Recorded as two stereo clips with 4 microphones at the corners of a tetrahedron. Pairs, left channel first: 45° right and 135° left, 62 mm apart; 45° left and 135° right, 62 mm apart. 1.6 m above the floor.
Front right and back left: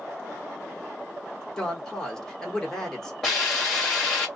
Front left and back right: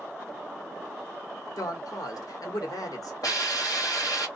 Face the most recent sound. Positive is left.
turn(degrees=40)